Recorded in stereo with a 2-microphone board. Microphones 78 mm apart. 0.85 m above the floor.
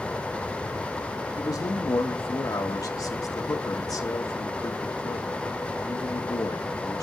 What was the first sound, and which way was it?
A man speaking, 55° left (ahead or behind).